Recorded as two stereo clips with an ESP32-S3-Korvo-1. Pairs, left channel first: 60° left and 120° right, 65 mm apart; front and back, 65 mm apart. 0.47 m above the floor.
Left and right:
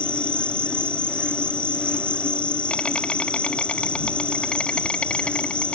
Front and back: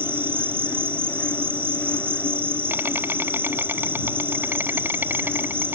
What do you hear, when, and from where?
0.0 s an insect: 130° left